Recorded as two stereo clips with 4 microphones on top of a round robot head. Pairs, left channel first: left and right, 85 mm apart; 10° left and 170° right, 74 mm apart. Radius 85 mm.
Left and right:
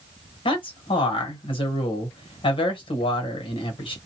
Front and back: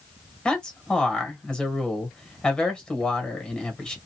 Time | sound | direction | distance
0.5 | a man speaking | 85° left | 1.3 m